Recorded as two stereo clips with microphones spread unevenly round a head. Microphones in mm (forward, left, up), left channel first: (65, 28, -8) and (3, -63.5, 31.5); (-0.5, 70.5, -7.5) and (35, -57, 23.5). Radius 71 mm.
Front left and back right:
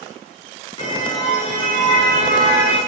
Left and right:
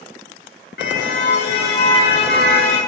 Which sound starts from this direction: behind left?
A car horn, at 0.8 s.